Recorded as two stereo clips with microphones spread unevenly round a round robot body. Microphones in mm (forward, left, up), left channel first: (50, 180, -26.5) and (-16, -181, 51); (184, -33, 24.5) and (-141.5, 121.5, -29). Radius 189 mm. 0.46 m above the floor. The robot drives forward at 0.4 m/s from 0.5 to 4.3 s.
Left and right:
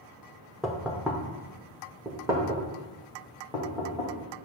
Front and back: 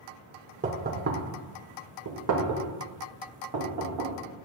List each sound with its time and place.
0.6 s knocking: 150° left, 0.7 m; by 4.1 s 175° left, 1.8 m